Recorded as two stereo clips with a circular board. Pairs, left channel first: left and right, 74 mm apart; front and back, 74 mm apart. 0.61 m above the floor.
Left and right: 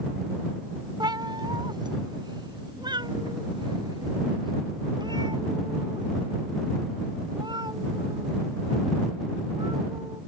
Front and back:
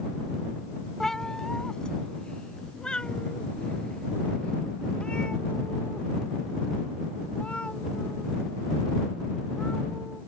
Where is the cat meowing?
85° right; by 10.2 s 75° right.